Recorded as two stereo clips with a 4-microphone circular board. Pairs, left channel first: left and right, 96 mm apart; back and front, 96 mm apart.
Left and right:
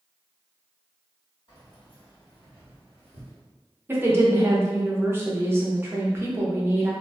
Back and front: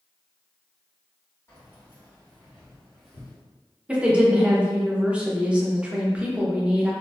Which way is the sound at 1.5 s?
120° left.